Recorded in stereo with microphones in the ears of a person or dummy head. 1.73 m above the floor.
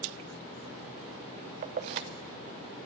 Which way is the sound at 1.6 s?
30° right (ahead or behind).